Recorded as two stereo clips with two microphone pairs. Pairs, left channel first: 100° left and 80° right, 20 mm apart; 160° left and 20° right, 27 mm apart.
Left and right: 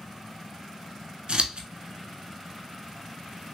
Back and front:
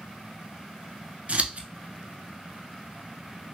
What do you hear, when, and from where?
1.3 s scissors: 50° right, 0.6 m